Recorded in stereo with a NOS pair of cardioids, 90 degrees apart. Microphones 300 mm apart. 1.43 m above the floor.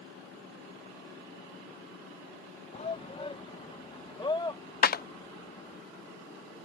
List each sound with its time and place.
2.7 s a shout: 20° left; by 5.8 s 15° left
4.8 s a clap: 35° left